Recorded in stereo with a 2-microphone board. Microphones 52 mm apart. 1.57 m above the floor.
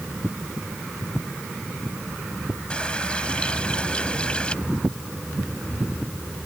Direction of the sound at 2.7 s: 20° left (ahead or behind).